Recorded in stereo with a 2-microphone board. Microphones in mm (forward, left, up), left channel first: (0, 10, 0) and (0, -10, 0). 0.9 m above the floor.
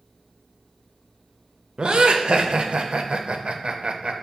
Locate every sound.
1.8 s laughter: 55° right (ahead or behind), 0.5 m